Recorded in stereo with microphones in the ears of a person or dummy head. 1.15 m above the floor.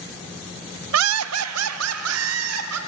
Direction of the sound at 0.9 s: 80° right.